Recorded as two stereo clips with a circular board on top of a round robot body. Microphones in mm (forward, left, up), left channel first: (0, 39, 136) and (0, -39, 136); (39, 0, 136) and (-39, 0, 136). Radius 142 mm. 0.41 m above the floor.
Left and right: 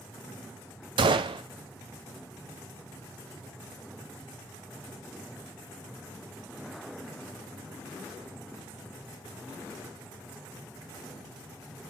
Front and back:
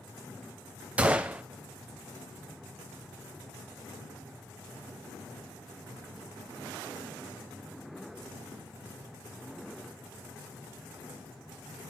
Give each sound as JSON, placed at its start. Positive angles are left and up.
{"t": 1.0, "sound": "a gunshot", "azimuth_deg": -105, "distance_m": 0.5}